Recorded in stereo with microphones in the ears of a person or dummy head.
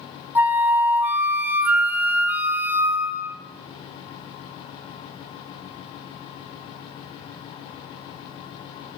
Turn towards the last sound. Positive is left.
turn(degrees=-10)  # may be behind; listen again after turning